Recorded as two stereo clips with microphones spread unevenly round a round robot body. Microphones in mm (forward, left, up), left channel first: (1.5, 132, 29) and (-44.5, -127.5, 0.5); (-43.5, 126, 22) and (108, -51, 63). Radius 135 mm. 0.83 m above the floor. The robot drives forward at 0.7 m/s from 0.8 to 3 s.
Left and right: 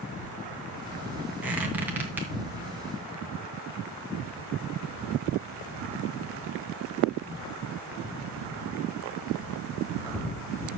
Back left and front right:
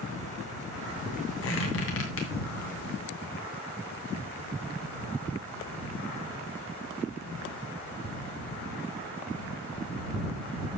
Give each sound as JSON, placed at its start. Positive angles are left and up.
{"t": 1.4, "sound": "a squeak", "azimuth_deg": 175, "distance_m": 2.5}